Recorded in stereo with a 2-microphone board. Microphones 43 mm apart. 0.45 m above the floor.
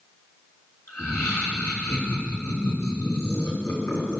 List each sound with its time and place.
0.9 s laughter: 75° left (ahead or behind), 4 m